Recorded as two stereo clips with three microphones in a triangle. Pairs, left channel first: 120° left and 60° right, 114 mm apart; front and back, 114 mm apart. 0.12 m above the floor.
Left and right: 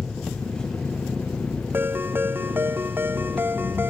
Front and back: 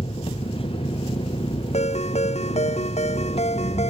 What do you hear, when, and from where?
0.0 s an engine running: 35° left
1.7 s a ringtone: 10° left